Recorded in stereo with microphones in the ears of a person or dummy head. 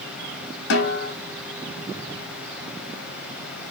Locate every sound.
0.7 s a snare drum: 70° left (ahead or behind), 3.5 m